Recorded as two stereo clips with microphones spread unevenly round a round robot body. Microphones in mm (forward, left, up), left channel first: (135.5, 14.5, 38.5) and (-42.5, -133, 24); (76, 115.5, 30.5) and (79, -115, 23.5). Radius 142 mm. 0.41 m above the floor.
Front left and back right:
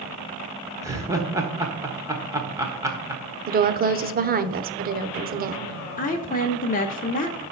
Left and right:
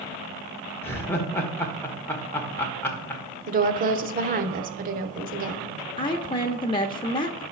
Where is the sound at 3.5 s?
120° right, 1.0 m.